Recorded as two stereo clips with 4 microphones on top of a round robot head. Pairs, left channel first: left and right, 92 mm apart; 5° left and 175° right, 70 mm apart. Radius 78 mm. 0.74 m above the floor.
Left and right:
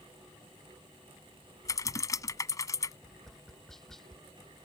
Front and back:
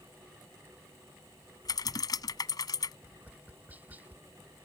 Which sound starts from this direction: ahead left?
Typing on a keyboard, at 1.6 s.